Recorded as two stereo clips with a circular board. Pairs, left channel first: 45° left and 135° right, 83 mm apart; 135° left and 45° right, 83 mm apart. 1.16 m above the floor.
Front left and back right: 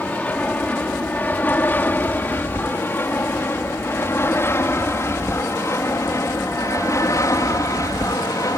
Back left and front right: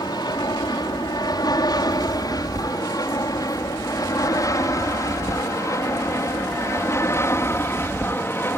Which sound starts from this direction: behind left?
An aircraft, at 0.0 s.